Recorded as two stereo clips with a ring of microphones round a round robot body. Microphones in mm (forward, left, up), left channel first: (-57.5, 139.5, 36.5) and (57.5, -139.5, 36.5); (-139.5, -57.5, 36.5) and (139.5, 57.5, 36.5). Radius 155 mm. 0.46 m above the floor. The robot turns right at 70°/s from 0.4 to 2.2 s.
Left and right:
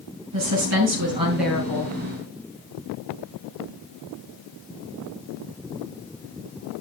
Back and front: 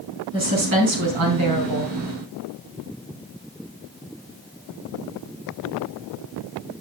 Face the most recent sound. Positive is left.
turn(degrees=75)